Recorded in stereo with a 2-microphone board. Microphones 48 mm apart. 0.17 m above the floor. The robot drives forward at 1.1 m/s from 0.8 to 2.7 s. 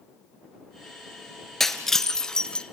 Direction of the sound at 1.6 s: 5° left (ahead or behind).